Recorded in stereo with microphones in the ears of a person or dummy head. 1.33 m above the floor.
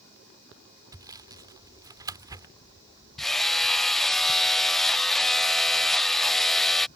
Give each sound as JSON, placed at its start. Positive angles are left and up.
{"t": 0.9, "sound": "sawing", "side_deg": -20}
{"t": 3.2, "sound": "hammering", "side_deg": 0}